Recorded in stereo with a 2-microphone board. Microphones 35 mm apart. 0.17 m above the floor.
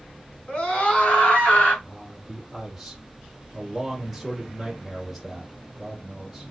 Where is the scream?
25° left (ahead or behind), 2.0 m; by 1.7 s 45° left (ahead or behind), 2.5 m.